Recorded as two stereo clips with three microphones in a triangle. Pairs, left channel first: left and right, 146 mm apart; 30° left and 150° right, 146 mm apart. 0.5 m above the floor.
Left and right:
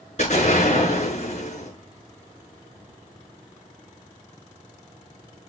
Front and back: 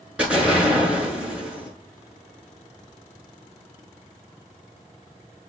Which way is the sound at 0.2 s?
130° left.